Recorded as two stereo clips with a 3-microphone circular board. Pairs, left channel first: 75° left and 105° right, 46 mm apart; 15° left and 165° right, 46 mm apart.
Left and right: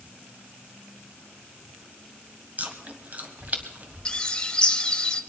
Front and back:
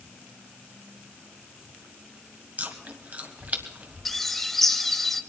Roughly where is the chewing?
Behind right.